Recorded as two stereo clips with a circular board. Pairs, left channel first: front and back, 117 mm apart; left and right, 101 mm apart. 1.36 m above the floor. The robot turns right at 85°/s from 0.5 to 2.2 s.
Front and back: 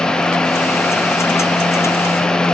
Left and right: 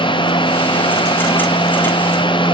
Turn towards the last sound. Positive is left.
No sound to turn to.